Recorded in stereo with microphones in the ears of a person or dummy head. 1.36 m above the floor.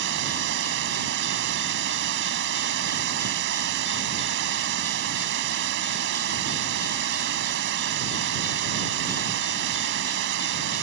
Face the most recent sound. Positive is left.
turn(degrees=-75)  # may be behind; listen again after turning